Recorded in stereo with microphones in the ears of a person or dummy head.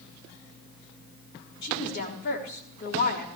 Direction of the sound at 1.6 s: 45° left (ahead or behind).